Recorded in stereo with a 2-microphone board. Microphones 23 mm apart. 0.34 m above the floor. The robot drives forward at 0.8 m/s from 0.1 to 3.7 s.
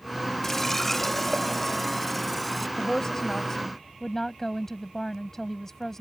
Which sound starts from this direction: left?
A woman speaking, at 2.8 s.